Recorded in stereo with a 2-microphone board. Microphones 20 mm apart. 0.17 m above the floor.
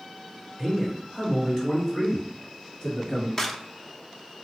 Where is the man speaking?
5° left (ahead or behind), 1.7 m; by 3.3 s 45° left (ahead or behind), 3 m.